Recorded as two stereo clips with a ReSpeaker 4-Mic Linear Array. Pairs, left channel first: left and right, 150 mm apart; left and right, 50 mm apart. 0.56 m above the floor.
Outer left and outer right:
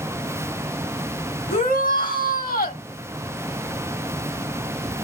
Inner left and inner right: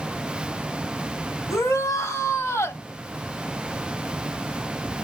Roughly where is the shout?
Left.